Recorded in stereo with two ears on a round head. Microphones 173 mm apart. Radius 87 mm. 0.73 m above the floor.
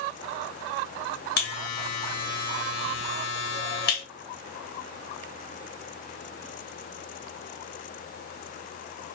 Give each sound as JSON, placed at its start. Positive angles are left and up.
{"t": 1.4, "sound": "a buzzer", "side_deg": 60, "distance_m": 1.1}